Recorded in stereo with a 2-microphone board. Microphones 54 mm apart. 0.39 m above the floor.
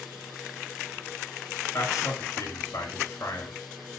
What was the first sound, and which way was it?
A man speaking, 75° left (ahead or behind).